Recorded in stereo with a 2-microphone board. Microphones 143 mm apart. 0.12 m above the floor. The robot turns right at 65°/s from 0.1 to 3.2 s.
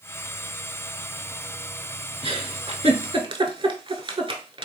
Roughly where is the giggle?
Right.